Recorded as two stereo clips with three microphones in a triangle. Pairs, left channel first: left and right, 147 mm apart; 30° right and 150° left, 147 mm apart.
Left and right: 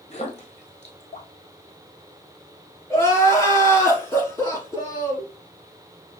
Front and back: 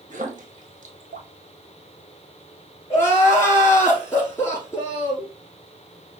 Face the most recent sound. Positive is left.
turn(degrees=30)